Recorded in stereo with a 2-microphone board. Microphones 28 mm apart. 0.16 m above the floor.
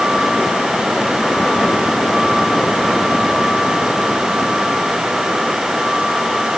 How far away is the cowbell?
I don't hear a cowbell.